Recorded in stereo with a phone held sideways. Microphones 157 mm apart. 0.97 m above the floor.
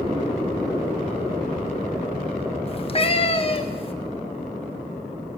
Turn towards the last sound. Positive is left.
turn(degrees=40)  # may be behind; listen again after turning